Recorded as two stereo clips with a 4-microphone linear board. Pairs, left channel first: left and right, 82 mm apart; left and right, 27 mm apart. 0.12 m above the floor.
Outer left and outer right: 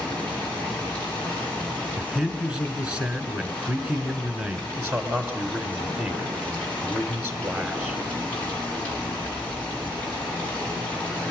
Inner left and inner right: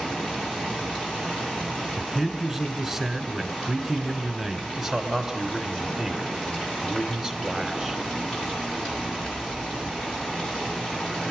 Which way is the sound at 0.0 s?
15° left (ahead or behind).